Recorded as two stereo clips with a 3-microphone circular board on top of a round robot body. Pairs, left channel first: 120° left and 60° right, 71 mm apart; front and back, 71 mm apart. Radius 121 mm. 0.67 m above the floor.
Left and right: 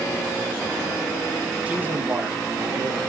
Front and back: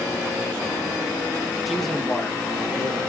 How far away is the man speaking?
About 1.0 m.